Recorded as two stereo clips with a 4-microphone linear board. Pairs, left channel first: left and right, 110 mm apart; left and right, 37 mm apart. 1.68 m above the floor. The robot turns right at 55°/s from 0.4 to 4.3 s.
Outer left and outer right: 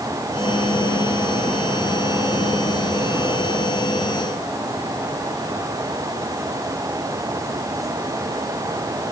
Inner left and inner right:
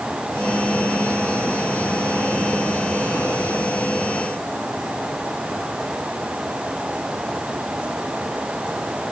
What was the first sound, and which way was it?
Only background noise.